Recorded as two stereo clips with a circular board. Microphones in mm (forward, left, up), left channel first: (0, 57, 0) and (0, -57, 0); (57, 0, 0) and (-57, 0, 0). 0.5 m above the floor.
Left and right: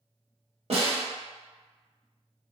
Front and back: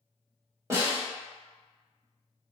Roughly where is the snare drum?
Behind right.